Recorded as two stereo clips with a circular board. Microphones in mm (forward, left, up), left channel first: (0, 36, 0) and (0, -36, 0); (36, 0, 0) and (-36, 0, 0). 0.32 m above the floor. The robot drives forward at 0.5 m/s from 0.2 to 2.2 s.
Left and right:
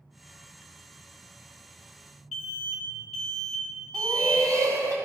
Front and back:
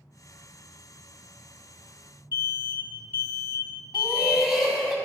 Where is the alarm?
160° left, 1.6 m.